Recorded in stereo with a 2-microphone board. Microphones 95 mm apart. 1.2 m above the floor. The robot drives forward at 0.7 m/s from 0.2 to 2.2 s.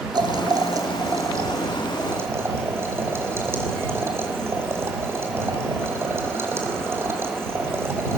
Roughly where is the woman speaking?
No woman speaking in this recording.